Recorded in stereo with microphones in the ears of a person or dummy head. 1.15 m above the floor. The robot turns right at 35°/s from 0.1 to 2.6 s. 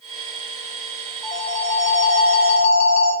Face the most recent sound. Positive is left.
turn(degrees=45)